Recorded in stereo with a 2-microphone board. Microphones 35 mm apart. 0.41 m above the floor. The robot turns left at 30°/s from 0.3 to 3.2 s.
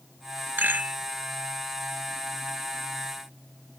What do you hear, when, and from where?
0.6 s a rattle: 80° right, 0.9 m; by 1.0 s 75° right (ahead or behind), 0.9 m